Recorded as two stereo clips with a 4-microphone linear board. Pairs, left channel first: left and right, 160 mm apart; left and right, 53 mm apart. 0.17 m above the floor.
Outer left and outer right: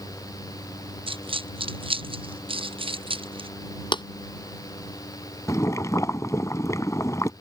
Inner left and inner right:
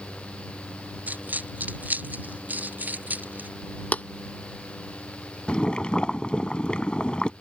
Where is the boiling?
20° left (ahead or behind).